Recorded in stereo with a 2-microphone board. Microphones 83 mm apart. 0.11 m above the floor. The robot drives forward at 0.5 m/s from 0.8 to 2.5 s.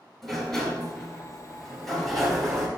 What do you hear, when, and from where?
0.2 s a sliding door: 5° left (ahead or behind), 1.8 m; by 2.7 s centre (ahead or behind), 2.5 m